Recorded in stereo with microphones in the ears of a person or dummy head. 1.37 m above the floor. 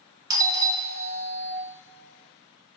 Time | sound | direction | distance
0.3 | a doorbell | 15° right (ahead or behind) | 1.0 m